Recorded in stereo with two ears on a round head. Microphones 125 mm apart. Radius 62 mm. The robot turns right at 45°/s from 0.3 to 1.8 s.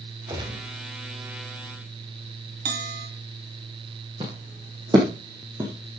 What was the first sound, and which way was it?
A gunshot, 30° right (ahead or behind).